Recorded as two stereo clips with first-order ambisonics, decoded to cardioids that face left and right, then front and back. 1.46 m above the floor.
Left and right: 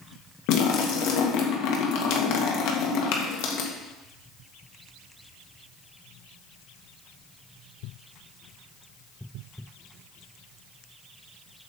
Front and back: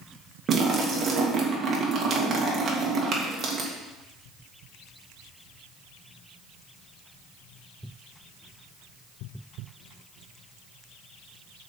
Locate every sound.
0.5 s a splash: 115° left, 1.7 m